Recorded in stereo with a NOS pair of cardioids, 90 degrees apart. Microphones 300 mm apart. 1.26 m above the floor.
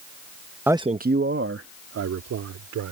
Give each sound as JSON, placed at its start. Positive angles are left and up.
{"t": 0.7, "sound": "a man speaking", "azimuth_deg": -5}